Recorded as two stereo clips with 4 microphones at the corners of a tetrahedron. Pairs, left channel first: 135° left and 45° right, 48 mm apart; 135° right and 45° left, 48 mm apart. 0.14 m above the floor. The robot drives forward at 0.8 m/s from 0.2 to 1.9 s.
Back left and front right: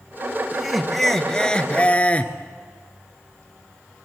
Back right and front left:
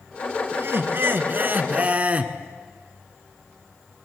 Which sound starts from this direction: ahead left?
Laughter, at 0.5 s.